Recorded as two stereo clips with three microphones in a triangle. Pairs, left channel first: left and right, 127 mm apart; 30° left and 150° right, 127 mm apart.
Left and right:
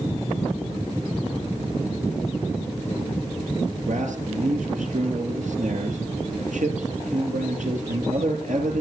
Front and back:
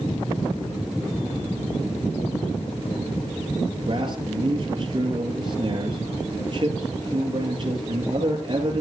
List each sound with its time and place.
3.9 s a man speaking: 100° right, 4.5 m